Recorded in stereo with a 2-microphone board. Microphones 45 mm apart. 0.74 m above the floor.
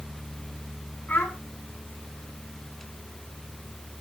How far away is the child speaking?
About 4 m.